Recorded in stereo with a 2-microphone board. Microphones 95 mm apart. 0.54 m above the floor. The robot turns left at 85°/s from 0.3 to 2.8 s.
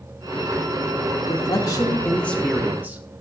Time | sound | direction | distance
1.3 | a man speaking | 105° left | 0.8 m